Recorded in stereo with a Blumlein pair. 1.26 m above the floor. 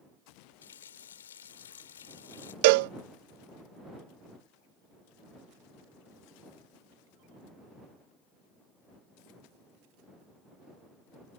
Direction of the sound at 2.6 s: 50° right.